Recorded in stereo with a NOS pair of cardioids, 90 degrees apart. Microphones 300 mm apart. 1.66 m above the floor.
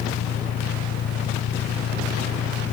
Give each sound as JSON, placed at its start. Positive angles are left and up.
{"t": 0.0, "sound": "an engine running", "azimuth_deg": 55}